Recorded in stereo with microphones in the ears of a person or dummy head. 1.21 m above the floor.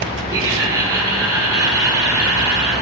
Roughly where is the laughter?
Centre.